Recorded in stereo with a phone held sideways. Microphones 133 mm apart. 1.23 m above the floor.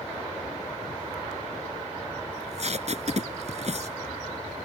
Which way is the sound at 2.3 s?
55° right (ahead or behind).